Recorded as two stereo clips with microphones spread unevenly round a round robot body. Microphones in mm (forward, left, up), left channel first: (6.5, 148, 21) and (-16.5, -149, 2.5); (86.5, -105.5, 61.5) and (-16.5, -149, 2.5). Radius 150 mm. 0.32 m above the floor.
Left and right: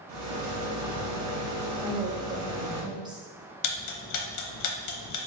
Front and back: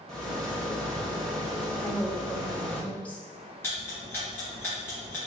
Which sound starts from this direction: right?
A rattle, at 0.1 s.